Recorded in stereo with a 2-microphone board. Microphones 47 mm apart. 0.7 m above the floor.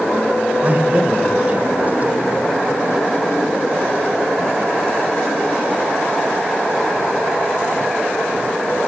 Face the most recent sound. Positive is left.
turn(degrees=-40)  # may be behind; listen again after turning